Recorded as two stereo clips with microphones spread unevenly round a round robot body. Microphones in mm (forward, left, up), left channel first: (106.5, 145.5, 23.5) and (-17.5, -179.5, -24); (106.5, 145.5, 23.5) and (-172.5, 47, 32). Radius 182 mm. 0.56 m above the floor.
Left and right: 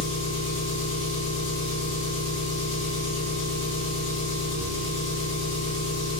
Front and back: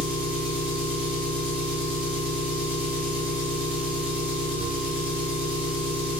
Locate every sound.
0.0 s an engine running: 115° left, 1.7 m